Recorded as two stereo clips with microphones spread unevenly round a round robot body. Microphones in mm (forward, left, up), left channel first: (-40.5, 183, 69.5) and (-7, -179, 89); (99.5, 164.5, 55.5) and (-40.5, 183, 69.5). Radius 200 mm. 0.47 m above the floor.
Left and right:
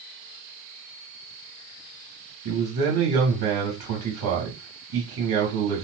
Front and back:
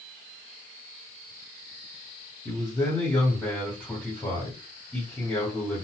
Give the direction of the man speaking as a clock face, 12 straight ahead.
3 o'clock.